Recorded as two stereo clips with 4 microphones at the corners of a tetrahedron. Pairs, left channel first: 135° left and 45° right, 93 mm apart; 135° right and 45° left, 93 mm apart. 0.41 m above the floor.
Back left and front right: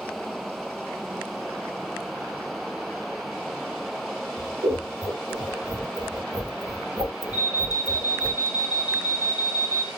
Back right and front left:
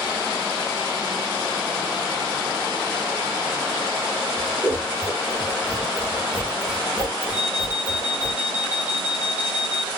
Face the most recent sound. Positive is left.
turn(degrees=-115)